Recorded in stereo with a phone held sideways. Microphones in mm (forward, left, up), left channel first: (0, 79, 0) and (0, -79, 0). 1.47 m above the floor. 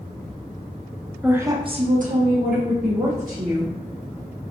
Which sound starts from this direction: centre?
A woman speaking, at 1.2 s.